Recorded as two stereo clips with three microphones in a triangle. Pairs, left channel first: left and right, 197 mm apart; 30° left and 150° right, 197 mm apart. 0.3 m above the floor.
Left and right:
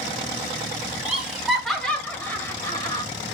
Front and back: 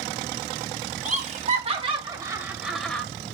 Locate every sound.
1.1 s laughter: 175° right, 2.0 m; by 3.0 s 100° left, 1.4 m